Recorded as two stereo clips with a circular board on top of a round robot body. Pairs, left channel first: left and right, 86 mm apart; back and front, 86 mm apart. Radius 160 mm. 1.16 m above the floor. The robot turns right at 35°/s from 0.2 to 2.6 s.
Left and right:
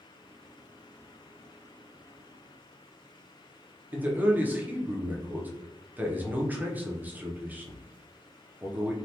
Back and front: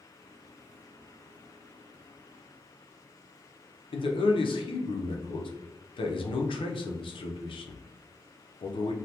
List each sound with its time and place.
3.9 s a man speaking: 160° right, 0.6 m